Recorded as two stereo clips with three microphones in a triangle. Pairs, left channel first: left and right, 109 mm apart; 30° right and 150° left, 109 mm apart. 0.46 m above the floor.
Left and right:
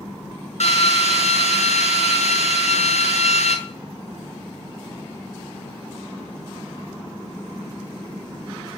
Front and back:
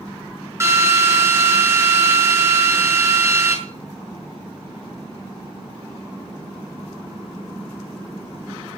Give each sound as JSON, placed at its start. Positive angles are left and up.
{"t": 0.6, "sound": "a drill", "azimuth_deg": 85, "distance_m": 5.0}